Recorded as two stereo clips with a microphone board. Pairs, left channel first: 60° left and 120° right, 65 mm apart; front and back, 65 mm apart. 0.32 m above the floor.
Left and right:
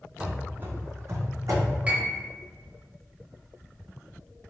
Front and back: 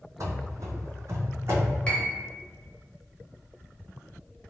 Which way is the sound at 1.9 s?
65° right.